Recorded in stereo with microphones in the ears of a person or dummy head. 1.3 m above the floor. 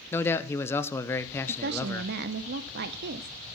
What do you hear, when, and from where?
0.1 s a man speaking: 15° left (ahead or behind), 0.8 m
1.5 s a woman speaking: 60° right (ahead or behind), 0.7 m